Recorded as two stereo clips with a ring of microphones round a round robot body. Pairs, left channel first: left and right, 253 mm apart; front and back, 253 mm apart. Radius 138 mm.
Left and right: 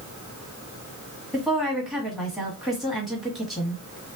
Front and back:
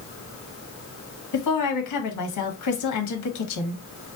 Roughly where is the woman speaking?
Ahead.